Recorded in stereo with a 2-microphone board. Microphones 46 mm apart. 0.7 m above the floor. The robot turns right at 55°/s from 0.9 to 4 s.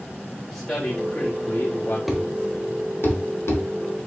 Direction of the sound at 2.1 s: Centre (ahead or behind).